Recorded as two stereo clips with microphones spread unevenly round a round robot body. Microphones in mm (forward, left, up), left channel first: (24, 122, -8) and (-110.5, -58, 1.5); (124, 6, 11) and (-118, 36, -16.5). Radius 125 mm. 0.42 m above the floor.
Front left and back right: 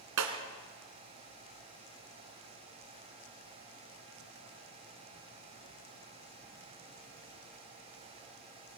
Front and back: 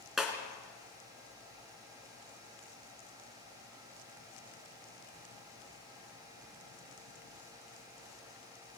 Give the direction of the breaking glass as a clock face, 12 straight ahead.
3 o'clock.